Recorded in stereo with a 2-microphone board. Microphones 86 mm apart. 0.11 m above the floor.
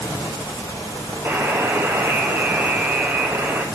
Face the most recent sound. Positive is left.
turn(degrees=-30)  # may be behind; listen again after turning